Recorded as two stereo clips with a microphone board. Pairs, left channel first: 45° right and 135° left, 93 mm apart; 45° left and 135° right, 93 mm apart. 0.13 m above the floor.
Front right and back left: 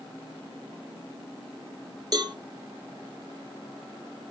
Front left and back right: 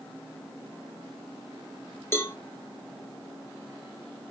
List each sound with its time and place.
2.1 s a cowbell: 100° left, 1.2 m